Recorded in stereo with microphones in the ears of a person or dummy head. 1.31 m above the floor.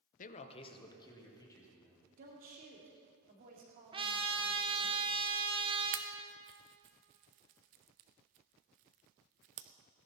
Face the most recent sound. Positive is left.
turn(degrees=-45)  # may be behind; listen again after turning